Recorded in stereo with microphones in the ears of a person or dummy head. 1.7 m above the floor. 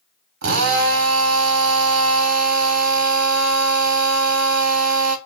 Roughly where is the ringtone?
No ringtone in this recording.